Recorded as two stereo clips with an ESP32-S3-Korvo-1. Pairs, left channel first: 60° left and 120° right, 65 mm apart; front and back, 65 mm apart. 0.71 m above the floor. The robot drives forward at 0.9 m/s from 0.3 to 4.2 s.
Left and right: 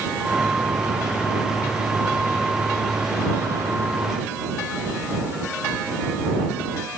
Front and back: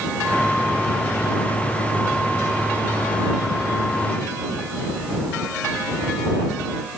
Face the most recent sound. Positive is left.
No sound to turn to.